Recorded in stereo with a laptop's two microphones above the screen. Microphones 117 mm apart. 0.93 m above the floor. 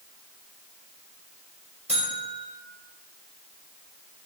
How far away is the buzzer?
About 4.5 m.